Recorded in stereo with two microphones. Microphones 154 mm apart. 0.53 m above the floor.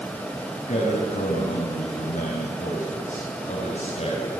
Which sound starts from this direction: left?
A man speaking, at 0.7 s.